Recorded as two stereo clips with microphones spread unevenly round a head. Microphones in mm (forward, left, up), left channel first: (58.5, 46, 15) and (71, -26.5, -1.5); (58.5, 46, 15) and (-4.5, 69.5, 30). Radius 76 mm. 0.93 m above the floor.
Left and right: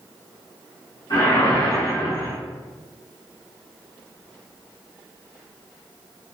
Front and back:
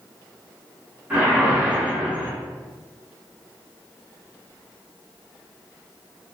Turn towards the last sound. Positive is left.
turn(degrees=85)